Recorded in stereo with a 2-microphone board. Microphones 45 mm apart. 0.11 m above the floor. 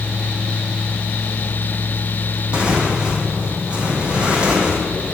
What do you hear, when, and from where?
2.5 s tearing paper: 25° right (ahead or behind), 3.5 m